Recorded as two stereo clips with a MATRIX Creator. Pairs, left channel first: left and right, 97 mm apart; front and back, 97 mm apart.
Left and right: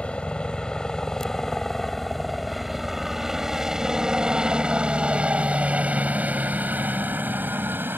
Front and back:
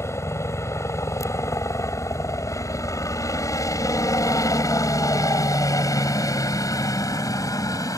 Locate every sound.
0.0 s a helicopter: 20° left; by 8.0 s 30° right